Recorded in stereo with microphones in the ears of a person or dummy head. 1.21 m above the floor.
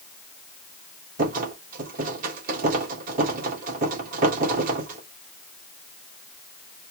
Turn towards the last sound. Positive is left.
turn(degrees=-50)  # may be behind; listen again after turning